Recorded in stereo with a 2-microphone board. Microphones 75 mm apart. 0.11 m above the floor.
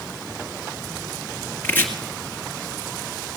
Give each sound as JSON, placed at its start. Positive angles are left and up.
{"t": 1.6, "sound": "chopping", "side_deg": 25, "distance_m": 1.9}